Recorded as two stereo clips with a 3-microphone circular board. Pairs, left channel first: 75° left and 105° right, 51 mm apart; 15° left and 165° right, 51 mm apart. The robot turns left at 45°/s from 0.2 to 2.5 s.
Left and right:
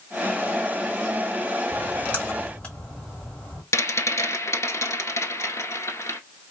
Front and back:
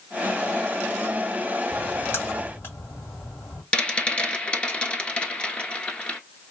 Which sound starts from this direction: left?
A rattle, at 3.7 s.